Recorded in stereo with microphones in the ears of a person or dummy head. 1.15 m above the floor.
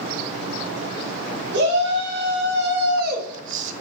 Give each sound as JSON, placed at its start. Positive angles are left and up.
{"t": 1.5, "sound": "a shout", "side_deg": -65, "distance_m": 2.5}